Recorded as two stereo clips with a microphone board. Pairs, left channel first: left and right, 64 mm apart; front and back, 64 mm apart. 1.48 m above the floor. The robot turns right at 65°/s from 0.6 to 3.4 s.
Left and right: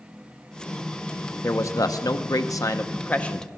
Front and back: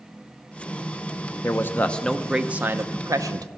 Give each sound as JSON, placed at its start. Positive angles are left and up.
{"t": 1.4, "sound": "a man speaking", "azimuth_deg": 40, "distance_m": 0.9}